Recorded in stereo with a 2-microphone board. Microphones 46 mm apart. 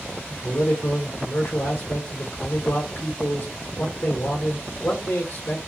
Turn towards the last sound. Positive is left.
turn(degrees=50)  # may be behind; listen again after turning